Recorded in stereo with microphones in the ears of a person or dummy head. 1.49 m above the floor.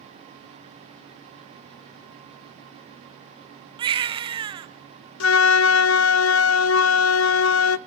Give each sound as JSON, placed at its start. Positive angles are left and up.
{"t": 3.8, "sound": "a baby crying", "side_deg": -25, "distance_m": 0.9}
{"t": 5.2, "sound": "a flute", "side_deg": 70, "distance_m": 0.6}